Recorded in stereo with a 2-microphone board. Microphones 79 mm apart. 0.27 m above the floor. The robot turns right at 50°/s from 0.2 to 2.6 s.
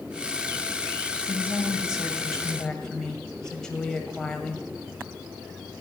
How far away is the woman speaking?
About 1.3 m.